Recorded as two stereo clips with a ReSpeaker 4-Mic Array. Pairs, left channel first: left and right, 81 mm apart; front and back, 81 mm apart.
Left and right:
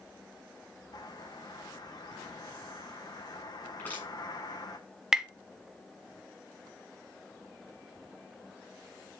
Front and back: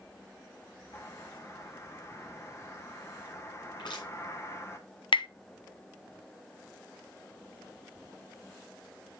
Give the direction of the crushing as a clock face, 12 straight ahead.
11 o'clock.